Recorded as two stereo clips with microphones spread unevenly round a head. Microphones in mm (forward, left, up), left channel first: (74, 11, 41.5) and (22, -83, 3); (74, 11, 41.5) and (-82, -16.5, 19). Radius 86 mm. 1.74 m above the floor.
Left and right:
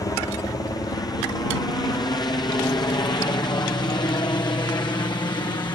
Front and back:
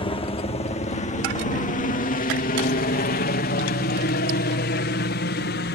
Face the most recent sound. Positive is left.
turn(degrees=5)